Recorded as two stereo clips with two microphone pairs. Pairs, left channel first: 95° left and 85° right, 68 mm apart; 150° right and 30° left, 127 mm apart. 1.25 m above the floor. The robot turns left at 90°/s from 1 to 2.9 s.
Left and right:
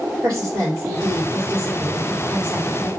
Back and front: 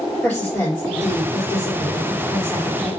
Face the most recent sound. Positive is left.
turn(degrees=120)